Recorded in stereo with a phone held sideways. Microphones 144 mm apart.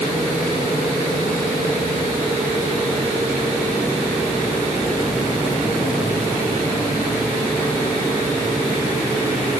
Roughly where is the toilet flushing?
I don't hear a toilet flushing.